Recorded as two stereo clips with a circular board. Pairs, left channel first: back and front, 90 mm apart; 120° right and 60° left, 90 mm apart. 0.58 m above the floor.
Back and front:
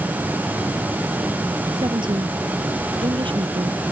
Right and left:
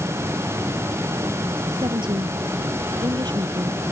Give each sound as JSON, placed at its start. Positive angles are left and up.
{"t": 1.7, "sound": "a woman speaking", "azimuth_deg": 30}